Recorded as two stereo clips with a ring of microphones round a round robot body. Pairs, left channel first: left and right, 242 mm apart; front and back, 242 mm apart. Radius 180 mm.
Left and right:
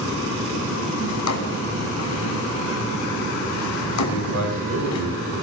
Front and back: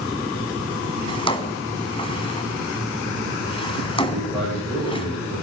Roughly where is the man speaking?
Right.